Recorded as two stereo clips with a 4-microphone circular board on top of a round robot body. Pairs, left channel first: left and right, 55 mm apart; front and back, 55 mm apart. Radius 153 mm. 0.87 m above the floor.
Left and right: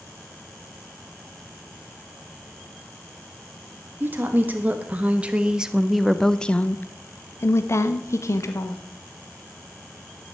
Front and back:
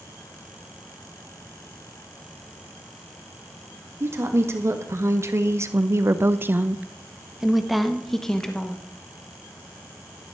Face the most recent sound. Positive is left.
turn(degrees=75)